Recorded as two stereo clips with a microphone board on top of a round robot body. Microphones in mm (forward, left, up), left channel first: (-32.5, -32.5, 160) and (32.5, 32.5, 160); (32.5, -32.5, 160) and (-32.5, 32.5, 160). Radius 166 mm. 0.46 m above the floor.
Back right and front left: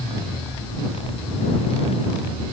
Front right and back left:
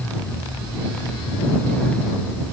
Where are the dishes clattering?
I don't hear dishes clattering.